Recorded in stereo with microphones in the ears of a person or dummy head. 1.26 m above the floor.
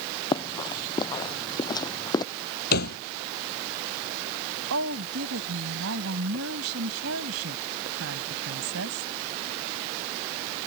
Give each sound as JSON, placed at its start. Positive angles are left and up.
{"t": 0.3, "sound": "running footsteps", "side_deg": 20}
{"t": 2.7, "sound": "a thud", "side_deg": 50}
{"t": 4.7, "sound": "a woman speaking", "side_deg": -80}